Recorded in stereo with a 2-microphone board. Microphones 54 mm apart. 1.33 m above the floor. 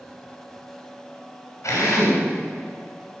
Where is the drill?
70° left (ahead or behind), 3.5 m.